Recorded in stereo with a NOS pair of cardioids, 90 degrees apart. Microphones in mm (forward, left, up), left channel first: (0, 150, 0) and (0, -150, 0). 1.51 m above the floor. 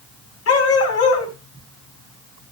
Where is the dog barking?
55° left, 4.5 m.